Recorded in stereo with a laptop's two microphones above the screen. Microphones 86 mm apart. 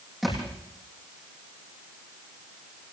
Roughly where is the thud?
Centre.